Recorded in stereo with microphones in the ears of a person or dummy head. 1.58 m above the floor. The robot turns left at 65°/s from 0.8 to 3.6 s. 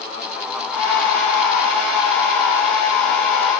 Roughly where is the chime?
I don't hear a chime.